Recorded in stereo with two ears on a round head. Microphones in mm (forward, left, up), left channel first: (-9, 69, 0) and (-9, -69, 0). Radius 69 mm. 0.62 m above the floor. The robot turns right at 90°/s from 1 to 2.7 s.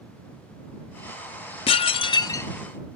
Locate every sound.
1.7 s dishes clattering: 80° left; by 2.5 s 160° left